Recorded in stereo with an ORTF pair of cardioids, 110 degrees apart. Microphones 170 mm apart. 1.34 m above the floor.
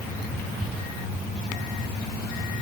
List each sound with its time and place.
Only background noise.